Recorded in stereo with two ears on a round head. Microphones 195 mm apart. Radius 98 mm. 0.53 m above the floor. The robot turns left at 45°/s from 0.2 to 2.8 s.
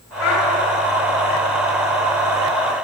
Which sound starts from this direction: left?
A child speaking, at 0.2 s.